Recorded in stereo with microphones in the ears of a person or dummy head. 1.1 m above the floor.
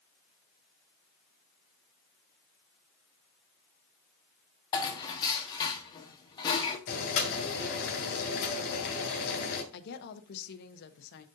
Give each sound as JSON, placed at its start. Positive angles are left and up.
{"t": 4.7, "sound": "dishes clattering", "side_deg": 25, "distance_m": 1.3}
{"t": 6.9, "sound": "boiling", "side_deg": 65, "distance_m": 2.5}
{"t": 9.7, "sound": "a woman speaking", "side_deg": 60, "distance_m": 0.9}